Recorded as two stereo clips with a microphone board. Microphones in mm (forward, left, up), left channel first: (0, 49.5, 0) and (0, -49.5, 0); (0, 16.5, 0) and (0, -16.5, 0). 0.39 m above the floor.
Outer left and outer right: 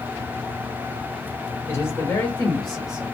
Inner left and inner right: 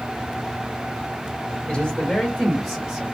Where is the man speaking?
30° left (ahead or behind), 1.6 m; by 3.0 s 10° right (ahead or behind), 1.4 m.